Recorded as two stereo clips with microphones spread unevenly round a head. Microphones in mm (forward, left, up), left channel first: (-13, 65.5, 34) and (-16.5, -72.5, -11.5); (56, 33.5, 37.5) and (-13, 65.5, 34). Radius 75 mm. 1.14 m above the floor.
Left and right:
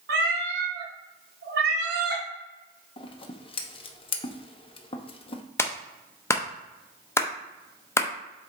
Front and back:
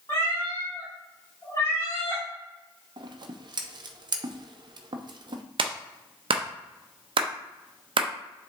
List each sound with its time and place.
0.1 s a cat meowing: 95° right, 1.7 m
3.0 s scissors: 150° left, 0.9 m
5.6 s a clap: 165° left, 0.9 m